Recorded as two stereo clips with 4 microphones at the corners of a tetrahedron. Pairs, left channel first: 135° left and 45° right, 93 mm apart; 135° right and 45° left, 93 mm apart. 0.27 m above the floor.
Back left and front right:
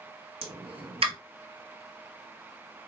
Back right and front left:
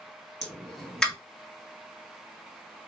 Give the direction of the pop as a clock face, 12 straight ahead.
2 o'clock.